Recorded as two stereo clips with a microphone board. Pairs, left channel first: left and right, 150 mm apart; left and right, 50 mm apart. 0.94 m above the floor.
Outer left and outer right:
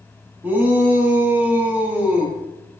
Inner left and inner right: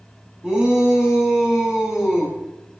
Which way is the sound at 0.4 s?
15° right (ahead or behind).